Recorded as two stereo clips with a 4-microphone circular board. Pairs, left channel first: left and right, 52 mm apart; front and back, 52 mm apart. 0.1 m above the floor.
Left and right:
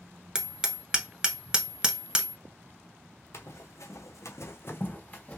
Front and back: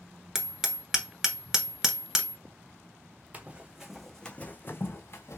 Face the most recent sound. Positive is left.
turn(degrees=20)